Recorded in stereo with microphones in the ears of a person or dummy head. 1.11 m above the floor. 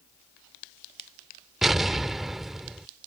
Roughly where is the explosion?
Centre.